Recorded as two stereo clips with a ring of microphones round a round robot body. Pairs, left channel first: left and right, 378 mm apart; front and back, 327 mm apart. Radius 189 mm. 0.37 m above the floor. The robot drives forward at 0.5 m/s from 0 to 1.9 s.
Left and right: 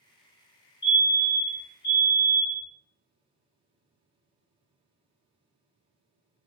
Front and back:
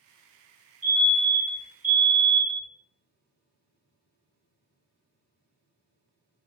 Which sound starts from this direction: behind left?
A fire alarm, at 0.8 s.